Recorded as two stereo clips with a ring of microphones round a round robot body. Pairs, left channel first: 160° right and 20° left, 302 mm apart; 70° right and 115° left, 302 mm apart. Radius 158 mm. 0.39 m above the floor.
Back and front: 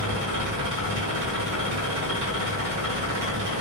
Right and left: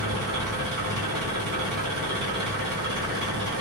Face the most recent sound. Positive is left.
turn(degrees=60)